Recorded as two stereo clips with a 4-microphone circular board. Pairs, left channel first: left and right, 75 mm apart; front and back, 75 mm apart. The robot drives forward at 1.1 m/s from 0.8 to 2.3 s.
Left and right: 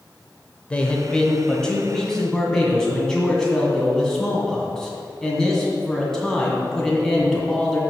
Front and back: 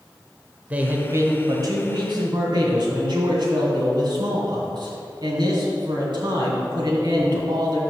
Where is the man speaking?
145° left, 0.9 m; by 7.8 s 175° left, 2 m.